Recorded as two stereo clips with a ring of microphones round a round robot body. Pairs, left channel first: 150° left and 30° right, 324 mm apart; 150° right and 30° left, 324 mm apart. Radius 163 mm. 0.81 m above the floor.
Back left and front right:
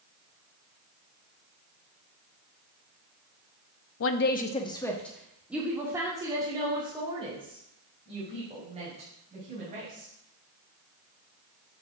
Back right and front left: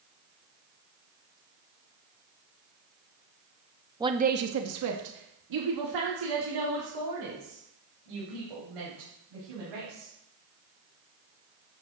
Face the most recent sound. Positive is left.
turn(degrees=40)